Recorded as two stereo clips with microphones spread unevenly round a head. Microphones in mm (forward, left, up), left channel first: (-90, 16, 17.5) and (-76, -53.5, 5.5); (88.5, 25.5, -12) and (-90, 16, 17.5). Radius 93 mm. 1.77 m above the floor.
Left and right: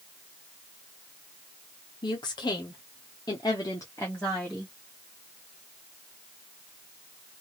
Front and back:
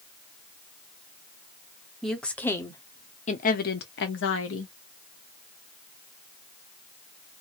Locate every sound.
2.0 s a woman speaking: 95° left, 1.1 m; by 4.7 s 10° left, 1.0 m